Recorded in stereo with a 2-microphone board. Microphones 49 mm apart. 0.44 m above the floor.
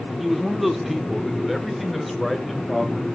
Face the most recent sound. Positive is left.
turn(degrees=0)  # may be behind; listen again after turning